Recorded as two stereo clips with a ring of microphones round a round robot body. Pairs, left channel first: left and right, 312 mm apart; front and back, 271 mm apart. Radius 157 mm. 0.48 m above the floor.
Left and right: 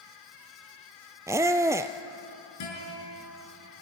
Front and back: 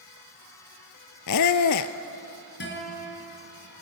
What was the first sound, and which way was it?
A squeak, 10° right.